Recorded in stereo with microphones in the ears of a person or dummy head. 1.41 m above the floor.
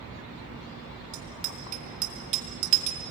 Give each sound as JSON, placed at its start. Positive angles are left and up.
{"t": 1.1, "sound": "a bicycle bell", "side_deg": -45, "distance_m": 2.5}